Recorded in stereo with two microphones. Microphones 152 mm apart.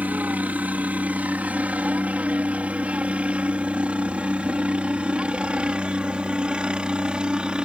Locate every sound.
0.0 s a helicopter: 10° right (ahead or behind); by 7.7 s 5° right (ahead or behind)